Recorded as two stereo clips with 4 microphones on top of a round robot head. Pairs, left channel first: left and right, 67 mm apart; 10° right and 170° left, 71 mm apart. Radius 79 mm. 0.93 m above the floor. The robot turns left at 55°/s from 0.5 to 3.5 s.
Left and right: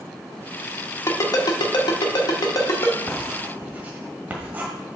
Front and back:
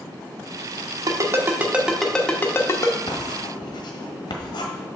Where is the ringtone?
135° left, 1.1 m; by 3.0 s 30° left, 1.1 m.